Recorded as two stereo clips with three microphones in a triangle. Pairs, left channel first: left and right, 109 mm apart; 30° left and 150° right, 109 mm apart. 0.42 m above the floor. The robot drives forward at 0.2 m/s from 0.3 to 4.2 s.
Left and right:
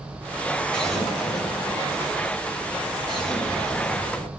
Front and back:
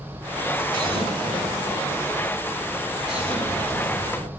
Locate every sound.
0.7 s an explosion: 170° left, 2.5 m; by 4.3 s 175° left, 3 m